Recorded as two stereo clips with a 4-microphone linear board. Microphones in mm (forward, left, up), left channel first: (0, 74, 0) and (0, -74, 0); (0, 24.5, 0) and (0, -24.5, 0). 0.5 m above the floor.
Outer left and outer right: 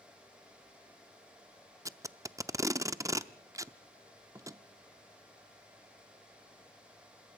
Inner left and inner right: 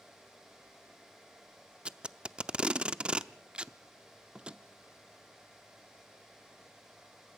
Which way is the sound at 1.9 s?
20° right (ahead or behind).